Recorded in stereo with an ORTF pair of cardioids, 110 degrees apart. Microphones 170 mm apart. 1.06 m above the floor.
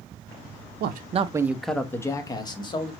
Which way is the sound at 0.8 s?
70° right.